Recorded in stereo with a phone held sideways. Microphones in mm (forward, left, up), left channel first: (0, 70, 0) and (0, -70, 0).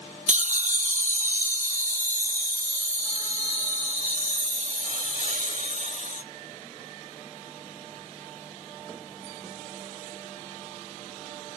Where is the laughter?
60° right (ahead or behind), 0.5 m; by 6.2 s 70° right (ahead or behind), 3.5 m.